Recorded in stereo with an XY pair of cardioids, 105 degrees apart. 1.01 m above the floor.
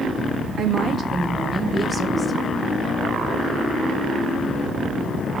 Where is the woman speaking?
55° right, 1.5 m; by 2.7 s 10° right, 1.7 m.